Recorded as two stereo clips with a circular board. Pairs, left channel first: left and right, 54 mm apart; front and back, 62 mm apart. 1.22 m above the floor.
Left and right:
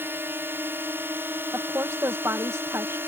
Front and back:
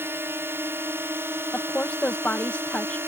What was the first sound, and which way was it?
A drone, 135° right.